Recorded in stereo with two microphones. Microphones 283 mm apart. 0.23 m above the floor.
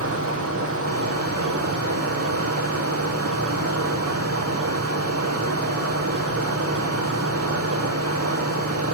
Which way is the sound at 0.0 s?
55° right (ahead or behind).